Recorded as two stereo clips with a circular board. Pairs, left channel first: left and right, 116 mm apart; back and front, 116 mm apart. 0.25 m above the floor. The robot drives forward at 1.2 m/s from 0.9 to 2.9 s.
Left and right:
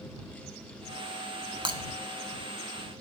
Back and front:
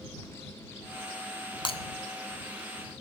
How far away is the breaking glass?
About 0.5 m.